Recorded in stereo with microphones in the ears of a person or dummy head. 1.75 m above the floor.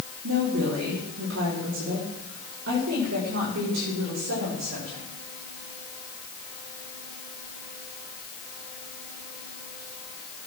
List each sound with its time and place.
0.2 s a woman speaking: 80° right, 3.5 m; by 5.0 s 60° right (ahead or behind), 6.5 m